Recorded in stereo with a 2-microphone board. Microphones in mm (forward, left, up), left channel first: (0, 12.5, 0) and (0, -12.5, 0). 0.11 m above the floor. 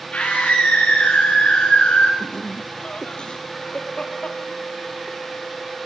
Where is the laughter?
45° left (ahead or behind), 3 m.